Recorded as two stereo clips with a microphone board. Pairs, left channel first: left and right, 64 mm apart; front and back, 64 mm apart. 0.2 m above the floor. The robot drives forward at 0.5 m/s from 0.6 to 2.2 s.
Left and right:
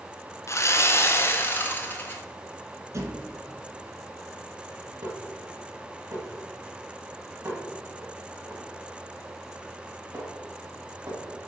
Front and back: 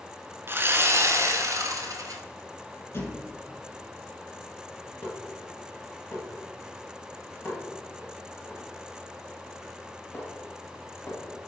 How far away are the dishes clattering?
About 3 m.